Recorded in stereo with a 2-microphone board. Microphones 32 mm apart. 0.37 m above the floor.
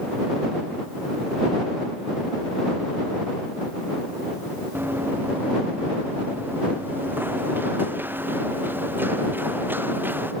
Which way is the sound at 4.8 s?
85° right.